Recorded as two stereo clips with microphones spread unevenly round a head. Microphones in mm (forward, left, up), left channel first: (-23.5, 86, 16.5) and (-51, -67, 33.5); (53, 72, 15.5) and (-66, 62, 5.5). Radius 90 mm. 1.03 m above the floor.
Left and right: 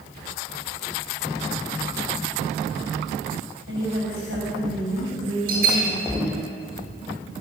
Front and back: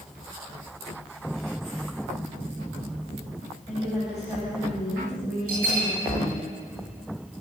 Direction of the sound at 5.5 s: 130° right.